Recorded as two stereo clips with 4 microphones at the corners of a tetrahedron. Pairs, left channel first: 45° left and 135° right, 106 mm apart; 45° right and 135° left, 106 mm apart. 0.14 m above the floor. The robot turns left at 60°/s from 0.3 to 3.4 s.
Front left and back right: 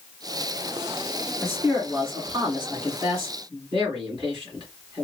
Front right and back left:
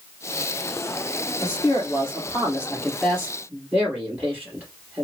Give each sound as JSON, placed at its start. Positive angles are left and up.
{"t": 1.4, "sound": "a man speaking", "azimuth_deg": -40, "distance_m": 2.5}